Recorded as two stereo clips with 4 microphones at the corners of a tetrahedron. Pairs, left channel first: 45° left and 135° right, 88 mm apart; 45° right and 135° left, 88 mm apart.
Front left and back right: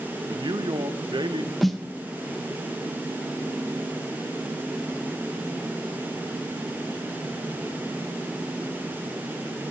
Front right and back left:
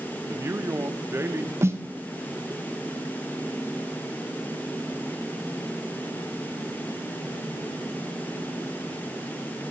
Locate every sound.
0.3 s a man speaking: 165° right, 0.7 m
1.6 s a snare drum: 135° left, 0.7 m